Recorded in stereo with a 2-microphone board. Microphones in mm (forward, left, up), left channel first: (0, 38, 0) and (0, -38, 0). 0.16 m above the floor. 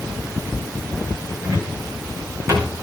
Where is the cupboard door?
40° right (ahead or behind), 5 m.